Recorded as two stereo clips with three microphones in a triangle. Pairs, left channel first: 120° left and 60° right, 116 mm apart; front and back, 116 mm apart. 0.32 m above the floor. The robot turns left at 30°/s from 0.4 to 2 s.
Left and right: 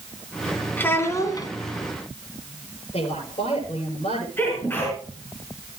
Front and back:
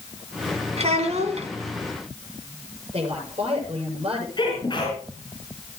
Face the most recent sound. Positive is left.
turn(degrees=45)